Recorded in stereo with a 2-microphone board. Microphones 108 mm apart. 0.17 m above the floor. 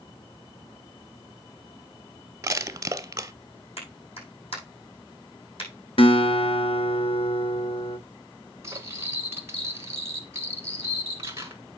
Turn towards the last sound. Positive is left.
turn(degrees=-25)  # may be behind; listen again after turning